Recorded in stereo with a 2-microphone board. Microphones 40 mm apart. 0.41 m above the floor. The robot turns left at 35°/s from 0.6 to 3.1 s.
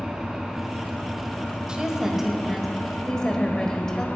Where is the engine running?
160° right, 3 m; by 4.2 s 115° left, 3 m.